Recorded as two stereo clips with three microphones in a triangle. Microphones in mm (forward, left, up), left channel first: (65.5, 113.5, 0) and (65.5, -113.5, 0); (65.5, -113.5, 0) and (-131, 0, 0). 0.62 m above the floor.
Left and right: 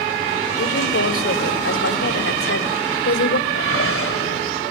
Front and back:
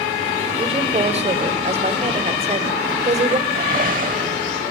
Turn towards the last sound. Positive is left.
turn(degrees=100)